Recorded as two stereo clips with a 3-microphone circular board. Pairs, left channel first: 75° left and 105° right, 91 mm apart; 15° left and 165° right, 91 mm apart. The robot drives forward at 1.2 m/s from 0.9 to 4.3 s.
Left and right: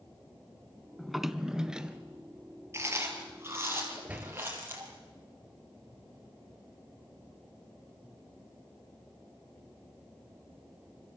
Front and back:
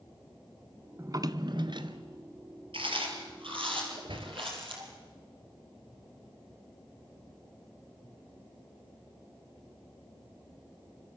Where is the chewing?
165° right, 4.5 m; by 4.9 s 170° right, 6 m.